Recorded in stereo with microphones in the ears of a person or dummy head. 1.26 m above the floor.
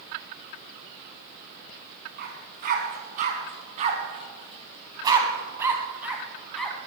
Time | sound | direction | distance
2.2 | a dog barking | 55° right (ahead or behind) | 3.5 m